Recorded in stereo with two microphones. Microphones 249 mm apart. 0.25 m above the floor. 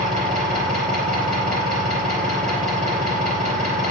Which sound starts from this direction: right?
An engine running, at 0.0 s.